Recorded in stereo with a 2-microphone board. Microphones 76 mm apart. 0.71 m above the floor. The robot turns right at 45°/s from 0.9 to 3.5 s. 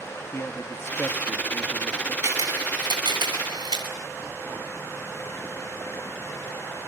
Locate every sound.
0.3 s a man speaking: 105° left, 1.0 m; by 2.1 s 160° left, 1.0 m
2.2 s a camera shutter: 35° right (ahead or behind), 7.5 m; by 3.9 s 80° right, 7.5 m